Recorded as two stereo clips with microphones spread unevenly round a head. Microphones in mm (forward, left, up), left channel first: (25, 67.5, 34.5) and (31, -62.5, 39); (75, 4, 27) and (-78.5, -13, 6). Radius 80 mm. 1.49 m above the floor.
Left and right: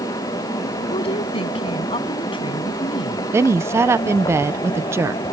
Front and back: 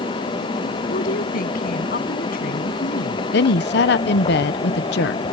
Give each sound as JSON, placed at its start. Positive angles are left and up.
{"t": 0.9, "sound": "a woman speaking", "azimuth_deg": 45}
{"t": 3.3, "sound": "a woman speaking", "azimuth_deg": -15}